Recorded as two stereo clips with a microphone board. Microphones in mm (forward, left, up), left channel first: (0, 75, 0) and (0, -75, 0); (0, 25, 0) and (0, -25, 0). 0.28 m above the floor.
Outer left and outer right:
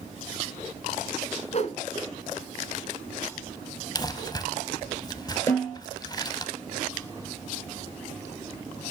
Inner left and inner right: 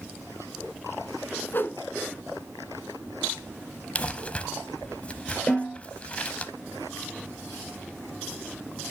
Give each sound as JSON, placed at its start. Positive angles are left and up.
{"t": 1.5, "sound": "a whoosh", "side_deg": 50, "distance_m": 1.0}
{"t": 4.0, "sound": "crumpling", "side_deg": 30, "distance_m": 0.7}
{"t": 5.5, "sound": "a snare drum", "side_deg": 25, "distance_m": 6.0}